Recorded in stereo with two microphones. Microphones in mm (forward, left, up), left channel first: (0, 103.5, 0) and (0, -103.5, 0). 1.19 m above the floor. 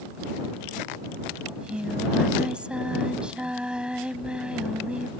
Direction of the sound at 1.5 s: 5° right (ahead or behind).